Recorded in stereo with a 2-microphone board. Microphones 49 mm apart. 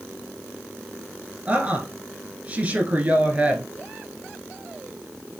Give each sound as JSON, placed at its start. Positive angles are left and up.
{"t": 1.5, "sound": "a woman speaking", "side_deg": -30, "distance_m": 1.2}